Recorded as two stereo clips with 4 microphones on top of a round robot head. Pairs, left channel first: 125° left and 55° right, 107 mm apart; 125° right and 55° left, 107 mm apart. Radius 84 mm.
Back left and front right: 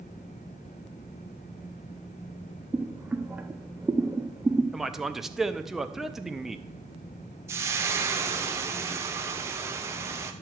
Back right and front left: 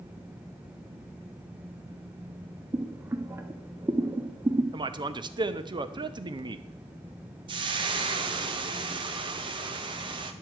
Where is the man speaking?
30° left, 0.7 m.